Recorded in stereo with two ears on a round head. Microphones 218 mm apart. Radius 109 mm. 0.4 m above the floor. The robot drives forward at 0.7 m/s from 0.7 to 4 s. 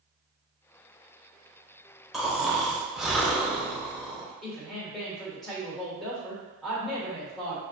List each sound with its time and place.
2.1 s snoring: centre (ahead or behind), 0.8 m
4.4 s a woman speaking: centre (ahead or behind), 1.4 m